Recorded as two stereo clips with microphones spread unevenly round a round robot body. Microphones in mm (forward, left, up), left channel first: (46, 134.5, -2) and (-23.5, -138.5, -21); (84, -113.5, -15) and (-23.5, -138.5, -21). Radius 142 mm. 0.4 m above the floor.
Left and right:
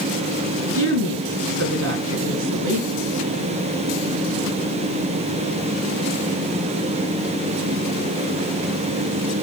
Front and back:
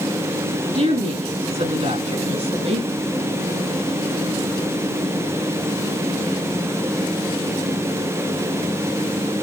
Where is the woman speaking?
155° right, 5 m; by 2.9 s 145° right, 3.5 m.